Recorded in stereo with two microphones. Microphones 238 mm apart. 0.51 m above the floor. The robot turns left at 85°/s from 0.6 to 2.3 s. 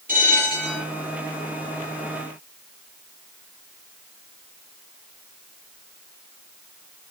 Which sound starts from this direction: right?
A bell, at 0.1 s.